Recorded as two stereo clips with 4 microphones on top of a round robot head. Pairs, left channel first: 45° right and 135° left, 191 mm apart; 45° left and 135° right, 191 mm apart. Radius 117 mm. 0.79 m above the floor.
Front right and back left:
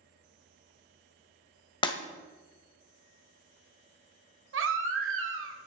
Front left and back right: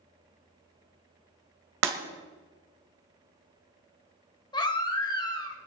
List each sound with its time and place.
1.8 s breaking glass: 110° right, 1.5 m
4.5 s a baby crying: 115° left, 2 m